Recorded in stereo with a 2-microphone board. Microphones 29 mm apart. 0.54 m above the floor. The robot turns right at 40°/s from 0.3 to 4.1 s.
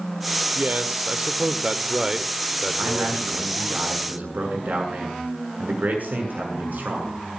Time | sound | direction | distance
0.6 | a man speaking | 95° right | 1.5 m
2.8 | a man speaking | 125° right | 7 m